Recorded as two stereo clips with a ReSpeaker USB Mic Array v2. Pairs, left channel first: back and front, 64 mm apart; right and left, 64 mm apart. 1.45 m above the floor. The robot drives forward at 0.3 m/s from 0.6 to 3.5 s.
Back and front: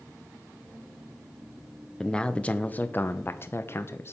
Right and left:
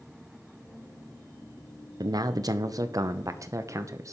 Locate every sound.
2.0 s a man speaking: 100° left, 0.8 m; by 4.1 s 125° left, 0.9 m